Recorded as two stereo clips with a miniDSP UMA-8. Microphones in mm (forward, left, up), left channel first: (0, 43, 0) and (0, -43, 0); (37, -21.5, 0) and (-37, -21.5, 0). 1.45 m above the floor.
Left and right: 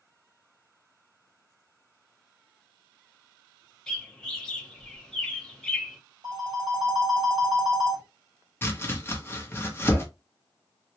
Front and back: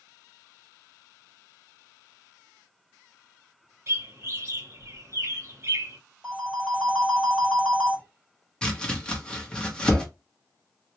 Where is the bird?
170° left, 0.9 m.